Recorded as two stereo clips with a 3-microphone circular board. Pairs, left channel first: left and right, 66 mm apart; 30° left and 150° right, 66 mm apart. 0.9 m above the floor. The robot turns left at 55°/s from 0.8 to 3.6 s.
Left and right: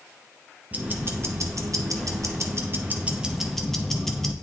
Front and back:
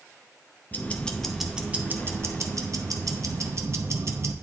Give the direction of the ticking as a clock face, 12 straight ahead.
1 o'clock.